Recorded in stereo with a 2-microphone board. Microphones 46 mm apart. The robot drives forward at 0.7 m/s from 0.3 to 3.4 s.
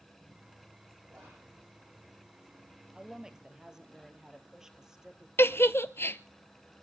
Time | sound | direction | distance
1.1 | whispering | 35° right (ahead or behind) | 7.5 m
3.0 | a woman speaking | 15° right (ahead or behind) | 1.8 m
5.4 | a giggle | 60° left (ahead or behind) | 0.7 m